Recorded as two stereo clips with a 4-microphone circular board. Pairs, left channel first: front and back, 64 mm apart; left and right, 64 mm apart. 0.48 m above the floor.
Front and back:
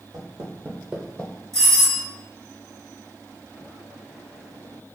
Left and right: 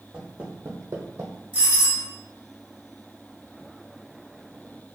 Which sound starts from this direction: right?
A doorbell, at 1.5 s.